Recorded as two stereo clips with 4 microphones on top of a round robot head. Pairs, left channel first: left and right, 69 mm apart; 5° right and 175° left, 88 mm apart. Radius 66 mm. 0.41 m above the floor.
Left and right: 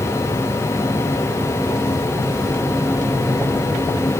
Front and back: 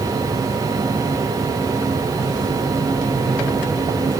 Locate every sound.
Only background noise.